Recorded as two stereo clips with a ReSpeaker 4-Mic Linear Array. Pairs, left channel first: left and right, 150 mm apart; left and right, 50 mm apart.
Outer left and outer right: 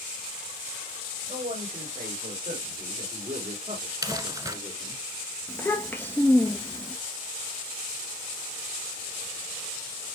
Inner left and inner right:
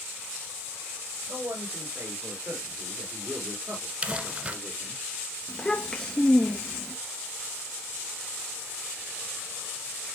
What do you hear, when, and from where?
1.3 s a man speaking: 45° right (ahead or behind), 6.5 m; by 5.0 s 30° right (ahead or behind), 4.5 m
4.0 s crumpling: 20° right (ahead or behind), 1.5 m
5.5 s a child speaking: 15° left (ahead or behind), 1.3 m